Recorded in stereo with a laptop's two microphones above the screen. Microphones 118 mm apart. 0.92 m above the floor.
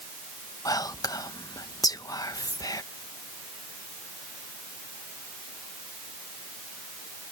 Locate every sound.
0.7 s whispering: 30° left (ahead or behind)